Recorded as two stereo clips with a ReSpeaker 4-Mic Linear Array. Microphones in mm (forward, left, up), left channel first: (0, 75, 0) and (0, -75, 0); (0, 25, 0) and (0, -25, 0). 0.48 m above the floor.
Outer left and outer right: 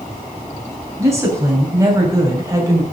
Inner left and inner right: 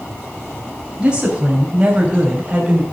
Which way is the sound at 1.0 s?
20° right (ahead or behind).